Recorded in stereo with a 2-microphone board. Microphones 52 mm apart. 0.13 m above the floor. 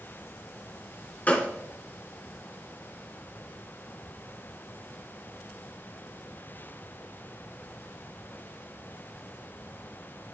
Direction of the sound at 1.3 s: 30° left (ahead or behind).